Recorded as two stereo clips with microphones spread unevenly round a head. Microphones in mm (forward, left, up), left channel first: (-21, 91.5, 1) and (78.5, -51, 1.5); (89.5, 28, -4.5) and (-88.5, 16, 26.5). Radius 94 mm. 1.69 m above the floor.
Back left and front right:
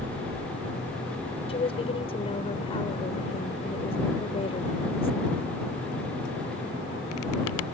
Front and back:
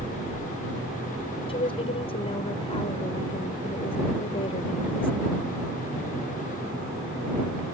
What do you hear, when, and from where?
1.5 s a woman speaking: 65° left